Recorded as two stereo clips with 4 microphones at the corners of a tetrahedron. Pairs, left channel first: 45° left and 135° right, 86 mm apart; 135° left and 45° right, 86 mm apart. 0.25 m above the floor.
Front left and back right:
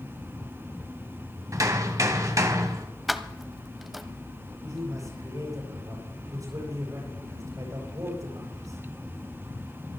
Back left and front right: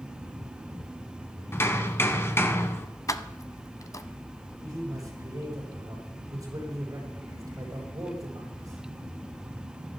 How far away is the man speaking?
About 8 m.